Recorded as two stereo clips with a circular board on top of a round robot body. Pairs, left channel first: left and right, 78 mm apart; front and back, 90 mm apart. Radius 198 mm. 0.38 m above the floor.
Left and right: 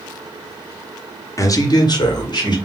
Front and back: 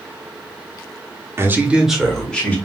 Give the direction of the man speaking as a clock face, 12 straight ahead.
8 o'clock.